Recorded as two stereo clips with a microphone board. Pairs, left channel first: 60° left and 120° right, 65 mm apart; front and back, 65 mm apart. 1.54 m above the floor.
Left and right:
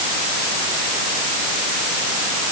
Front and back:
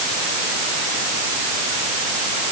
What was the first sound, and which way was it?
Only background noise.